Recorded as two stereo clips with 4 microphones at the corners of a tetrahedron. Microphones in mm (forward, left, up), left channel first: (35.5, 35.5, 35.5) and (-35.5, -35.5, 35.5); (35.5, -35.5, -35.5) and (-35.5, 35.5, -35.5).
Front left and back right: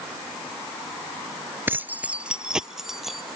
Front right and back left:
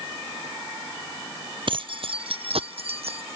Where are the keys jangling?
160° left; by 3.4 s 135° left.